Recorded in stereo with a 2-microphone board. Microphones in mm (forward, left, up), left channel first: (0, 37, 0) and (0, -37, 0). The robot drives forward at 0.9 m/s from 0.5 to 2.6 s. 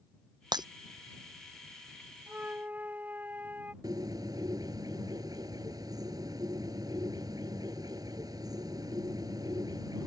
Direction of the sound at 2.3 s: 25° right (ahead or behind).